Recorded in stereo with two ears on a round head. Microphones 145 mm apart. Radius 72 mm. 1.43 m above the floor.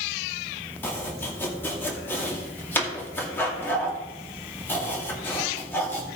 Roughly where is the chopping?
Centre.